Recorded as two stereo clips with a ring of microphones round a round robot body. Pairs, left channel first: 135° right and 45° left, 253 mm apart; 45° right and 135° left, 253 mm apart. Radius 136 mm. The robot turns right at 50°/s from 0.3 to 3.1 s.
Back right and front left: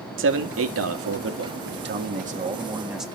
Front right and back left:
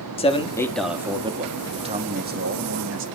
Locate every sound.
0.2 s a man speaking: 20° left, 1.7 m; by 1.6 s 80° left, 1.7 m
1.6 s a man speaking: 65° left, 1.6 m; by 3.1 s 135° left, 1.6 m